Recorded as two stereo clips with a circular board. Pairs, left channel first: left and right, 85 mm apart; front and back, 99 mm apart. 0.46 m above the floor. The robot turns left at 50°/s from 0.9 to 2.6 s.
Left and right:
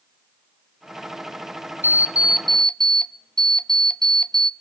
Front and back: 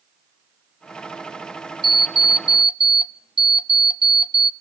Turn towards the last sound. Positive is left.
turn(degrees=170)